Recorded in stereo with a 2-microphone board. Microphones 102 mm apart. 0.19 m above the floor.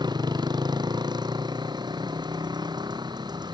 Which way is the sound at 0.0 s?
45° right (ahead or behind).